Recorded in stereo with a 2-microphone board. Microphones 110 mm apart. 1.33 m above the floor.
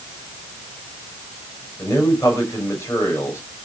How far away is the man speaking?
About 6.5 m.